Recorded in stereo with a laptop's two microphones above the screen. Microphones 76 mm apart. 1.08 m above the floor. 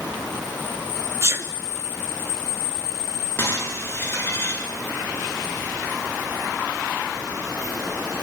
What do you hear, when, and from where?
1.2 s a sneeze: 35° right (ahead or behind), 2.5 m
3.4 s breaking glass: 30° left (ahead or behind), 7.5 m